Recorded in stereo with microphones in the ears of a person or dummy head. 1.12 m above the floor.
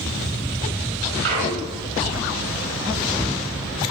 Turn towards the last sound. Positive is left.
turn(degrees=-70)  # may be behind; listen again after turning